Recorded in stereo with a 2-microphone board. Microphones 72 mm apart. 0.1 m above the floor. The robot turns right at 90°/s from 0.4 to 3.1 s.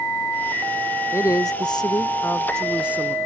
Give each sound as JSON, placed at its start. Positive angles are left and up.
{"t": 1.1, "sound": "a woman speaking", "azimuth_deg": 40}